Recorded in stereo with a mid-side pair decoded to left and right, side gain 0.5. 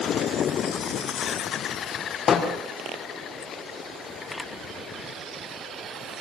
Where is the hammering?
50° left, 6.5 m.